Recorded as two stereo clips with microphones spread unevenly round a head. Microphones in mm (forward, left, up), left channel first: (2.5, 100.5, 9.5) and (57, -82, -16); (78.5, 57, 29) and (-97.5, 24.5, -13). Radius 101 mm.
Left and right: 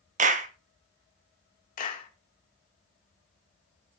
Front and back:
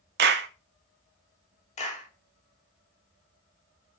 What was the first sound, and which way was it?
A clap, 130° right.